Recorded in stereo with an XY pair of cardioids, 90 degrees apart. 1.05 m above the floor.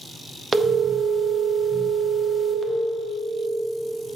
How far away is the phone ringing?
About 1.2 m.